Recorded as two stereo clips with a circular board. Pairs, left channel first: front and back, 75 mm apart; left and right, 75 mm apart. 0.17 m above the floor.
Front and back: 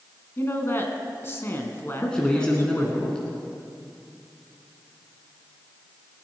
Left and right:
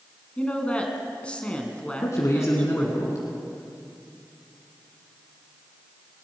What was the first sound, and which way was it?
A woman speaking, 30° left.